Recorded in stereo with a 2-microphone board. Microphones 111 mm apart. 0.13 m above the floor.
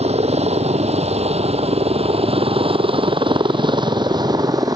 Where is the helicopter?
70° right (ahead or behind); by 4.8 s 35° right (ahead or behind).